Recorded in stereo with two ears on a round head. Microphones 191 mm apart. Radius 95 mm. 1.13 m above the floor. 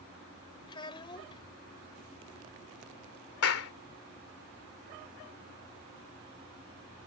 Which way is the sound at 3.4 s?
80° left.